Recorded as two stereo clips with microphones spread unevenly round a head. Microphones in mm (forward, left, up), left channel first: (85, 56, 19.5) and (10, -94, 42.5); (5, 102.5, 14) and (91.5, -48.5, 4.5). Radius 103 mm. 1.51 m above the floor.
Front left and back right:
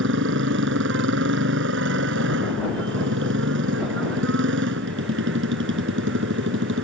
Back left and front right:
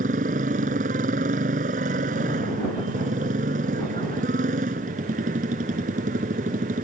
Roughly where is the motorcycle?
Behind right.